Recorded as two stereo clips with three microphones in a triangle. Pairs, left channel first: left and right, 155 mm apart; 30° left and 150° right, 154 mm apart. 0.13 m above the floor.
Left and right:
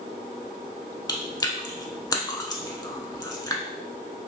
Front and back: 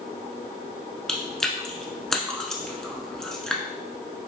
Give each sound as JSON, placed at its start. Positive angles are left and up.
{"t": 1.1, "sound": "chewing", "azimuth_deg": 110, "distance_m": 0.6}